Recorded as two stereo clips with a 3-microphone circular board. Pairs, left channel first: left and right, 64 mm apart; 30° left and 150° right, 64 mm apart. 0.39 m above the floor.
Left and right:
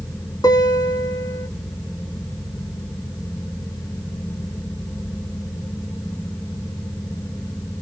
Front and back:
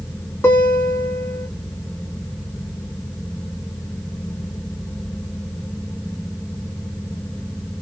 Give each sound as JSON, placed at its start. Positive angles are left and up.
{"t": 0.4, "sound": "a guitar", "azimuth_deg": 80, "distance_m": 1.3}